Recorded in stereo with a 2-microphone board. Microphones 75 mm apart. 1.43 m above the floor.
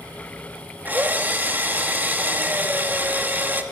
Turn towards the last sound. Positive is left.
turn(degrees=-25)  # may be behind; listen again after turning